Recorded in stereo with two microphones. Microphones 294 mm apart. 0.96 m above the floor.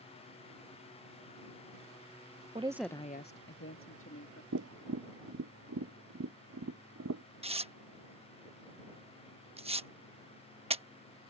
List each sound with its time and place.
2.5 s a woman speaking: 25° right (ahead or behind); by 4.4 s 50° left (ahead or behind)
4.5 s tapping: 65° right (ahead or behind)
7.4 s tearing paper: 20° right (ahead or behind)